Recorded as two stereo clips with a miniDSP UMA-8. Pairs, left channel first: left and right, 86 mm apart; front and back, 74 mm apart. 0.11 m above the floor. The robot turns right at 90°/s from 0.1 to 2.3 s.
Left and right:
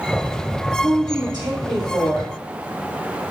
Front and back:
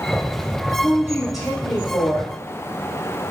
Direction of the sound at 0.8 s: 140° right.